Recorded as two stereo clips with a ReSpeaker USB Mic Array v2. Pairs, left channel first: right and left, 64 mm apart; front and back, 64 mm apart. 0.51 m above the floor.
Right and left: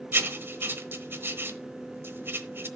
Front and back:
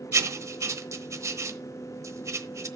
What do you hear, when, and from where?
0.1 s writing: 145° left, 1.0 m